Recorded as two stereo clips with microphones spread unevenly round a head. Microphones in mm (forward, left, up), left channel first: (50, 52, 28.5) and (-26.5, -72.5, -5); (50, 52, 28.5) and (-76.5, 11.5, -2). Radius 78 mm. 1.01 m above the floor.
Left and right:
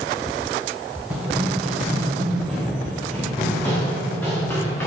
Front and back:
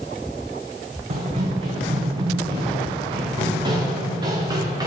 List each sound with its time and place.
1.1 s running footsteps: 150° left, 4 m; by 4.9 s 135° left, 5.5 m